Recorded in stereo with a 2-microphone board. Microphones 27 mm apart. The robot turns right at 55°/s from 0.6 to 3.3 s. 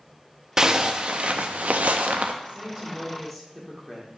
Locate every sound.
0.6 s a zipper: 155° right, 0.6 m; by 2.3 s 60° right, 0.6 m
2.4 s a woman speaking: 45° right, 1.9 m; by 4.1 s 5° left, 1.9 m